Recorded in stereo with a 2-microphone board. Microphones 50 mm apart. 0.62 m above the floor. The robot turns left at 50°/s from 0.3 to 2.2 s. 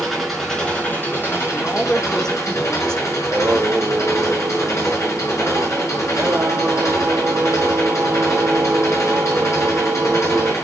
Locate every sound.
0.0 s an engine running: straight behind, 6.5 m; by 10.6 s 85° left, 6.5 m
1.5 s a man speaking: 45° left, 1.7 m; by 3.1 s 10° left, 1.7 m
3.2 s singing: 60° right (ahead or behind), 1.4 m